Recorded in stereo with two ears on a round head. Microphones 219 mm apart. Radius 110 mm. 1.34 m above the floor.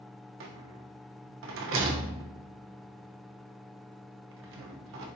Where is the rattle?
55° right (ahead or behind), 0.7 m.